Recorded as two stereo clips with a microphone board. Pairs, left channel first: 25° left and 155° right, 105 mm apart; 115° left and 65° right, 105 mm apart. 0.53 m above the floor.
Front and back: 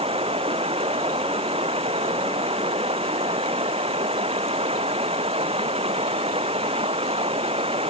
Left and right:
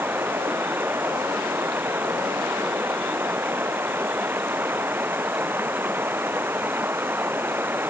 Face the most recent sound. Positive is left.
turn(degrees=-140)